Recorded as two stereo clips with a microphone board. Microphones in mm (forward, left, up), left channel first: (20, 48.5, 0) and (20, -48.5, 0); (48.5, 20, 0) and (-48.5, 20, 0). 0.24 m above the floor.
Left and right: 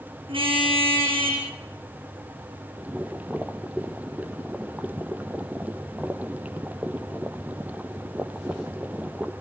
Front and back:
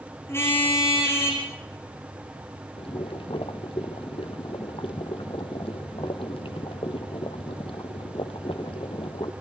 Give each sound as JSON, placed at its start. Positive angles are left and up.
{"t": 0.3, "sound": "a car horn", "azimuth_deg": -65, "distance_m": 7.0}
{"t": 2.8, "sound": "boiling", "azimuth_deg": -15, "distance_m": 1.4}